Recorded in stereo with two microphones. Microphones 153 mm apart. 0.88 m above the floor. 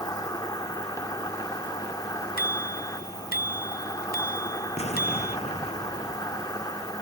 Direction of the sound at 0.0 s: 25° left (ahead or behind).